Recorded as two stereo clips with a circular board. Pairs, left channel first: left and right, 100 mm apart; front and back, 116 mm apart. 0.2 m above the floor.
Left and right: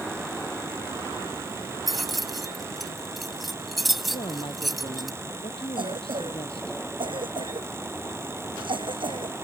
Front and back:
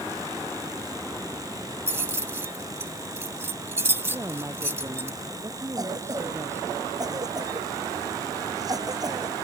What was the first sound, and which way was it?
Keys jangling, 175° right.